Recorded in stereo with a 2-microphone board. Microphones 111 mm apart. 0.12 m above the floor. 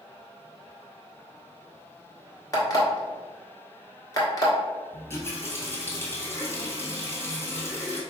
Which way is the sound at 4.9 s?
20° left (ahead or behind).